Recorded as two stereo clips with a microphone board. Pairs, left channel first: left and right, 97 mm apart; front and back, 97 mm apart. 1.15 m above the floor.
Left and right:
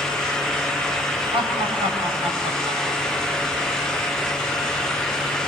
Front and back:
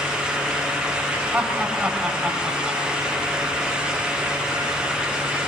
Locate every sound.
1.3 s laughter: 105° right, 7.5 m; by 3.3 s 95° right, 8.5 m